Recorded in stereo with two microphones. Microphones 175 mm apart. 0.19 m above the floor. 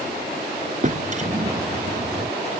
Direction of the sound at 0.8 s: 45° right (ahead or behind).